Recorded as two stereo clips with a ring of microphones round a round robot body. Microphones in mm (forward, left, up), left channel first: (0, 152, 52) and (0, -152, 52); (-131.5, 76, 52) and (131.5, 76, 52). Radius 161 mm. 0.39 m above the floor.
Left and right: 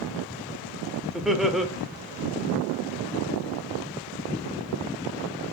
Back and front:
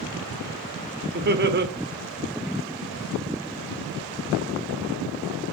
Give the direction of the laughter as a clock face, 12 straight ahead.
12 o'clock.